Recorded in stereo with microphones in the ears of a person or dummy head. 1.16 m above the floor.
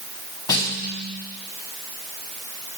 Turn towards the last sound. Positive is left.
turn(degrees=25)  # may be behind; listen again after turning